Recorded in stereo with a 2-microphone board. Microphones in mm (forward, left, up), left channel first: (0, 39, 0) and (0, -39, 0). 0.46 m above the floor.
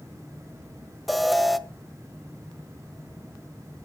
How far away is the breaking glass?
I don't hear breaking glass.